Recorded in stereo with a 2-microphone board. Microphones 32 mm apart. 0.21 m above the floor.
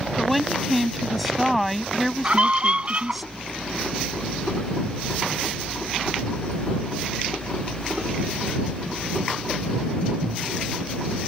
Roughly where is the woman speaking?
Centre.